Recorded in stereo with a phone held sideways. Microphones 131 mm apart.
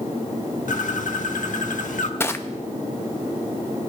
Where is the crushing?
20° left (ahead or behind), 0.6 m.